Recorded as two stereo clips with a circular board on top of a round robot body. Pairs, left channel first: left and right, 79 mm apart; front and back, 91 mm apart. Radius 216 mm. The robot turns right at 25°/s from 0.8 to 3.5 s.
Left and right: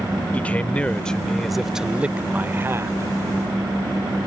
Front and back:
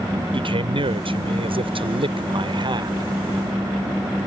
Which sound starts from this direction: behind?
A man speaking, at 0.3 s.